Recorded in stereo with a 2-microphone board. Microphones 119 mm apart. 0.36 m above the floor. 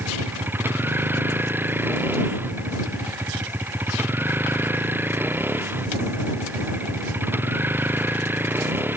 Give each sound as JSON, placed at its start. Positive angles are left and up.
{"t": 0.0, "sound": "a vehicle", "side_deg": -15}